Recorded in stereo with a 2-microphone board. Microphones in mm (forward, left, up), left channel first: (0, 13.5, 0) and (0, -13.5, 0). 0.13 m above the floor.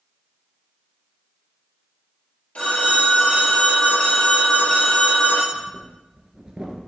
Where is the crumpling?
I don't hear crumpling.